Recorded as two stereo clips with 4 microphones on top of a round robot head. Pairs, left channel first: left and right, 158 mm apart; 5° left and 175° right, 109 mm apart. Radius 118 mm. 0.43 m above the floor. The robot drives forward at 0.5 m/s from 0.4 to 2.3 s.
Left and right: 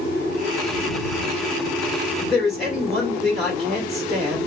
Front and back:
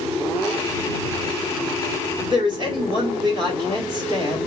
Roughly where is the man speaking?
Behind.